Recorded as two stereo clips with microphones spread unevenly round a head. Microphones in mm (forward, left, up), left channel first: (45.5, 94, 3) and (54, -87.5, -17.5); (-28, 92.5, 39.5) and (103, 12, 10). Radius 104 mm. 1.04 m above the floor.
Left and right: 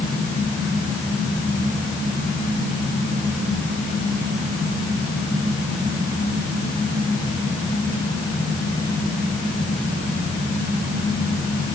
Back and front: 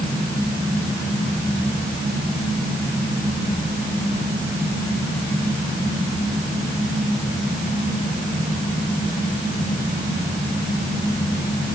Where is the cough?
I don't hear a cough.